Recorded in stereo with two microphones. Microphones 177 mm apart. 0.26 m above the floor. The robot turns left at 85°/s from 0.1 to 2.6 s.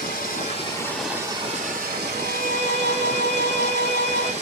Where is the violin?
60° right, 0.9 m; by 4.3 s 100° right, 0.9 m.